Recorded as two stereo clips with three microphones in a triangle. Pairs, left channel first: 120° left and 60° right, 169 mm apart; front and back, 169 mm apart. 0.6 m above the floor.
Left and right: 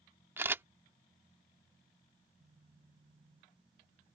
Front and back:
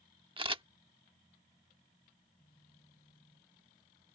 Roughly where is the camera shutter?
Behind right.